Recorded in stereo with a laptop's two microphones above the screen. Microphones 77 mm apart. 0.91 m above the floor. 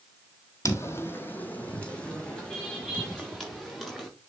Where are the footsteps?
40° left (ahead or behind), 1.6 m; by 4.1 s 5° left (ahead or behind), 5.5 m.